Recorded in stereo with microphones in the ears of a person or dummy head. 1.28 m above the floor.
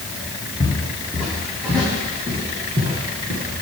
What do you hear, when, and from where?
0.6 s footsteps: 5° left (ahead or behind), 2.5 m; by 3.4 s 45° right (ahead or behind), 3 m